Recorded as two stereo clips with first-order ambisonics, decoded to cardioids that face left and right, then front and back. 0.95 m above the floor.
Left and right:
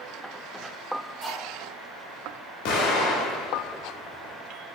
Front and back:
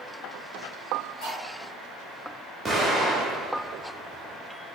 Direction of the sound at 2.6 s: 100° left.